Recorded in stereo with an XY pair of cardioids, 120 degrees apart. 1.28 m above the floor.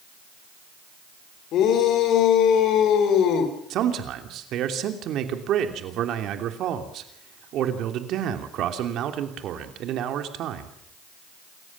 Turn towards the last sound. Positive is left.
turn(degrees=-65)